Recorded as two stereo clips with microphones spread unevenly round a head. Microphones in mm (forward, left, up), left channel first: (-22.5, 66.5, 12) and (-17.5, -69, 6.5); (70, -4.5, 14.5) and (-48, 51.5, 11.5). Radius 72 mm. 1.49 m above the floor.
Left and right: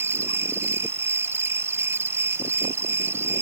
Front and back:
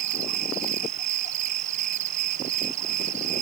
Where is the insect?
160° right.